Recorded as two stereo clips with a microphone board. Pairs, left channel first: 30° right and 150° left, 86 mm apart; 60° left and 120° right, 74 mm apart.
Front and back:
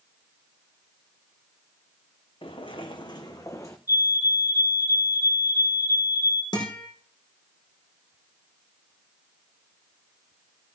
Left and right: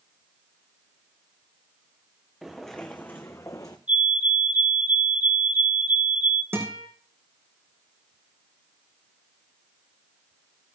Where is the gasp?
No gasp in this recording.